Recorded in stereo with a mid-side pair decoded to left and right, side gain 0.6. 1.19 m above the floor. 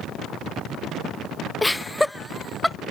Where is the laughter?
10° left; by 2.8 s 5° left.